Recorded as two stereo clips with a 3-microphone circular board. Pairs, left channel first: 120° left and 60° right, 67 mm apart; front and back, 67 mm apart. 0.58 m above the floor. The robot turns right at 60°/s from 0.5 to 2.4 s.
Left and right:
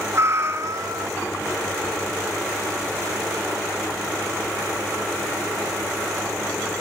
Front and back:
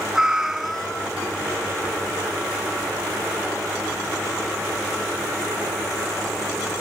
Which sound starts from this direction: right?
A cat meowing, at 0.1 s.